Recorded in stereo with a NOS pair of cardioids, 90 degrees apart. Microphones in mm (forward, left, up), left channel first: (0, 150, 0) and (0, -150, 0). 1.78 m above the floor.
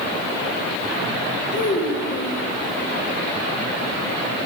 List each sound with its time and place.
1.5 s a child speaking: 40° left, 1.7 m